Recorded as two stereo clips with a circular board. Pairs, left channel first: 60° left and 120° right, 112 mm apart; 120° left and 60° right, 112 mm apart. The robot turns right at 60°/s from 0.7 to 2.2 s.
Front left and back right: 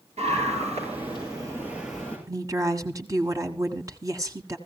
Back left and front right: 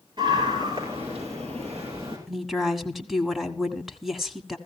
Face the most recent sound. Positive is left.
turn(degrees=-150)